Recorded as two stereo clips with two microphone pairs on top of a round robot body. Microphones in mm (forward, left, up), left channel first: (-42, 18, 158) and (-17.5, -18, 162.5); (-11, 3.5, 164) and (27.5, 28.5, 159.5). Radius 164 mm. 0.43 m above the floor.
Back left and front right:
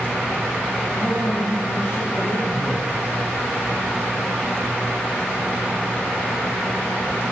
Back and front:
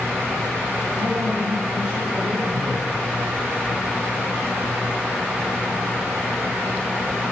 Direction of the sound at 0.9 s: 75° left.